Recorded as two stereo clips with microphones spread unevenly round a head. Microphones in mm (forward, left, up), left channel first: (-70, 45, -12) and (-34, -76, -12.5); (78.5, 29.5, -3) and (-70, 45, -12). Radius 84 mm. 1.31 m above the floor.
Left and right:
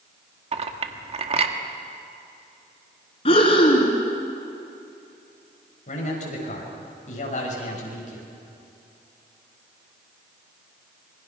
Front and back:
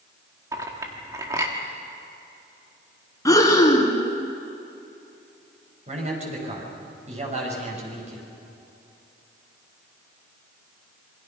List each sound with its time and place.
0.5 s a clink: 115° right, 1.7 m
3.2 s breathing: 60° left, 2.5 m
5.9 s a man speaking: 130° left, 7 m